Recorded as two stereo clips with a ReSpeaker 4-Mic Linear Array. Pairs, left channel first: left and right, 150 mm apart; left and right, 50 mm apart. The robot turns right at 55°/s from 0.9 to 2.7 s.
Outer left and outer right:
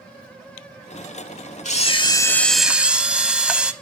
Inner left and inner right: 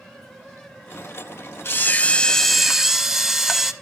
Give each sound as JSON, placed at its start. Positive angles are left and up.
{"t": 1.6, "sound": "a camera shutter", "azimuth_deg": 130, "distance_m": 0.8}